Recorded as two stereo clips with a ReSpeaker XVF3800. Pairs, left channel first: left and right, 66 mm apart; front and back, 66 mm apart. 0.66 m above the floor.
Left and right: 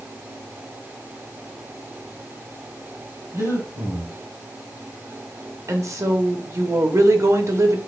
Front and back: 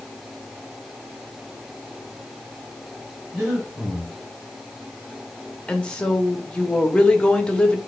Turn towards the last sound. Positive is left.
turn(degrees=-70)